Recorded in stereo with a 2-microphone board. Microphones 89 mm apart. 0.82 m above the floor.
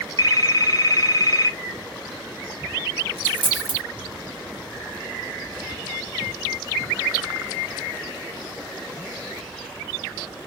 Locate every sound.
0.2 s a phone ringing: 45° left (ahead or behind), 0.8 m
3.2 s a dropped coin: 70° right (ahead or behind), 1.1 m